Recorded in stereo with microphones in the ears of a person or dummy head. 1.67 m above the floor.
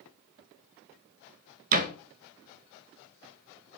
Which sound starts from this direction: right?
A door slam, at 1.7 s.